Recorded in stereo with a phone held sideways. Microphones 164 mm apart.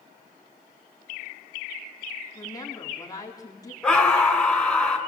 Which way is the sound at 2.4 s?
20° left (ahead or behind).